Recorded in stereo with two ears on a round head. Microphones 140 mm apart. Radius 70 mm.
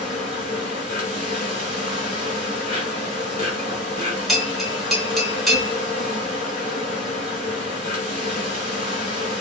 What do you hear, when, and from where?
0.0 s an insect: 55° left (ahead or behind), 1.4 m
4.3 s a bell: centre (ahead or behind), 0.5 m